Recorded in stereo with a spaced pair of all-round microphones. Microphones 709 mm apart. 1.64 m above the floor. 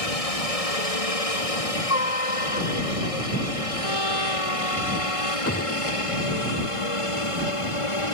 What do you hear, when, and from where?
0.0 s a helicopter: 55° left (ahead or behind); by 8.2 s 45° left (ahead or behind)
3.8 s a trumpet: 35° right (ahead or behind)
5.5 s a gunshot: 20° left (ahead or behind)